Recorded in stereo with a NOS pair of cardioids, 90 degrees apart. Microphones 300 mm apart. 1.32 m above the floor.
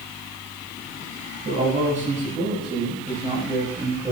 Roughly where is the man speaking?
Ahead right.